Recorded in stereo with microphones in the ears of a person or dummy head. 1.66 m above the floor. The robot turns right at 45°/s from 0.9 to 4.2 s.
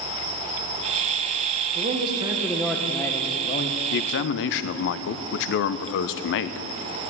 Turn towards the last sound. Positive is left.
turn(degrees=65)  # may be behind; listen again after turning